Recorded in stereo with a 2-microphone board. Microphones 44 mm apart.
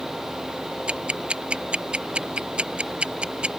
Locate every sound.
0.9 s ticking: 25° right (ahead or behind)